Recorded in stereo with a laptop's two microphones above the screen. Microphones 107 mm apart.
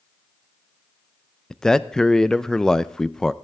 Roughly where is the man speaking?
Centre.